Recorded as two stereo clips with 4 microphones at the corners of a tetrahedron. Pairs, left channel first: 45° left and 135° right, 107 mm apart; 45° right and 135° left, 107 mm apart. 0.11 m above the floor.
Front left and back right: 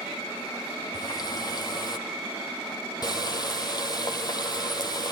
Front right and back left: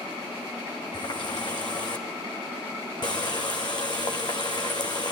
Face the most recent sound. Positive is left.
turn(degrees=0)